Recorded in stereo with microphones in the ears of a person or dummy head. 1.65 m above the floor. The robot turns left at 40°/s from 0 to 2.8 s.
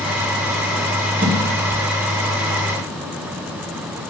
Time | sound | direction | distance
1.2 | a whoosh | 40° right (ahead or behind) | 2.5 m